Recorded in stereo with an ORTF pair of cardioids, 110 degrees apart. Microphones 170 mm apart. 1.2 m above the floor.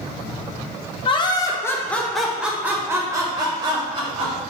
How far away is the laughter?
About 1.1 m.